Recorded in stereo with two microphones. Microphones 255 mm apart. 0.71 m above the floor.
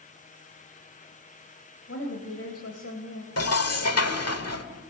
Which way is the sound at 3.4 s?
75° left (ahead or behind).